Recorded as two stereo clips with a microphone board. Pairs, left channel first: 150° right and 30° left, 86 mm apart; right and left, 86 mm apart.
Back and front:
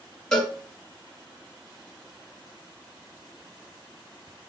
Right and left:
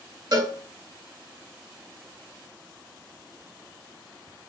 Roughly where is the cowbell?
Behind left.